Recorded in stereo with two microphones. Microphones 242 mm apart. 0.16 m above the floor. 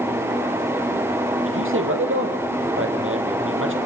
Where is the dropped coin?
No dropped coin in this recording.